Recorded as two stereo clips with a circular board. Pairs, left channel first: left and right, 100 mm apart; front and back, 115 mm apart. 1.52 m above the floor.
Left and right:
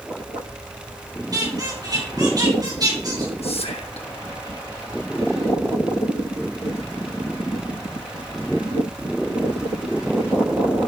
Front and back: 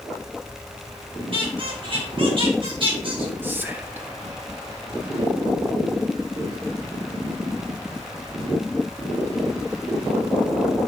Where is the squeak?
135° right, 3.5 m.